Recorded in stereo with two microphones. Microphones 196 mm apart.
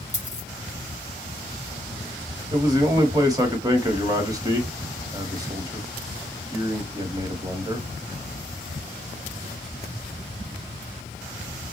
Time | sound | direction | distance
0.1 | a dropped coin | 35° left (ahead or behind) | 4 m
2.5 | a man speaking | 20° right (ahead or behind) | 1.2 m